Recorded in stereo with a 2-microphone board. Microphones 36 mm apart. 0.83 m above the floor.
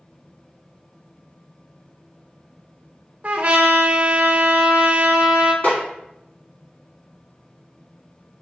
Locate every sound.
3.2 s a trumpet: 45° right (ahead or behind), 0.5 m
5.6 s a snare drum: 45° left (ahead or behind), 1.9 m